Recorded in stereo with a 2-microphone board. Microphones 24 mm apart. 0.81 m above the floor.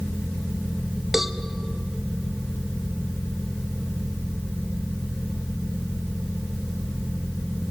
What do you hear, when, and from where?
1.1 s a cowbell: 15° right (ahead or behind), 0.7 m